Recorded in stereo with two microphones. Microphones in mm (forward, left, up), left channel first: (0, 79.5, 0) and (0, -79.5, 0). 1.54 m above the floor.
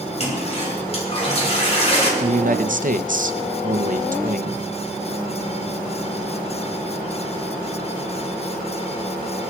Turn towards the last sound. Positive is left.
turn(degrees=-60)  # may be behind; listen again after turning